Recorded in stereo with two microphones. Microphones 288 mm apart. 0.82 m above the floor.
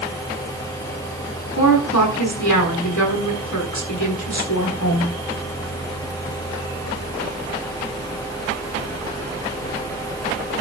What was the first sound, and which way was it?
A woman speaking, 85° left.